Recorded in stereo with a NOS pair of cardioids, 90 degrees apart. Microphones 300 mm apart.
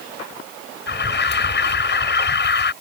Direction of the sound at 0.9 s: 35° left.